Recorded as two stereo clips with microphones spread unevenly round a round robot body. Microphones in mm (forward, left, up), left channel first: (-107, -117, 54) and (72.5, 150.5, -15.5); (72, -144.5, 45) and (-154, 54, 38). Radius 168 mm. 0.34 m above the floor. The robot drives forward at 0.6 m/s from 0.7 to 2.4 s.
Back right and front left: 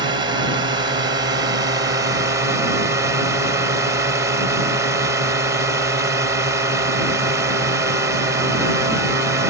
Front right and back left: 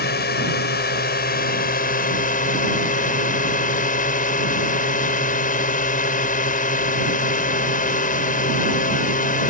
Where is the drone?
Straight ahead.